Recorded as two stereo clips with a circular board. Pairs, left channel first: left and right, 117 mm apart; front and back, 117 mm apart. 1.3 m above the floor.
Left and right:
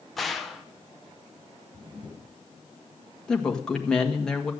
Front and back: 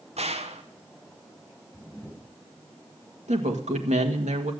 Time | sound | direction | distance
0.2 | a gunshot | straight behind | 1.1 m
1.7 | a camera shutter | 75° right | 7 m
3.3 | a woman speaking | 175° left | 1.5 m